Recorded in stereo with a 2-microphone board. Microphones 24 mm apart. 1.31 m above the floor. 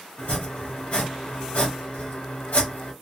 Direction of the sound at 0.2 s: 55° left (ahead or behind).